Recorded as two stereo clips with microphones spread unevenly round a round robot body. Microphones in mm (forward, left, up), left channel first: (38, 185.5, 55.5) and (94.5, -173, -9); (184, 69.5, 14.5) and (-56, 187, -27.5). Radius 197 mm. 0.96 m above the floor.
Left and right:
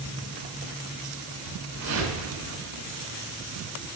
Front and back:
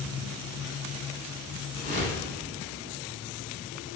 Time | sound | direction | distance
1.7 | a whoosh | 135° right | 5 m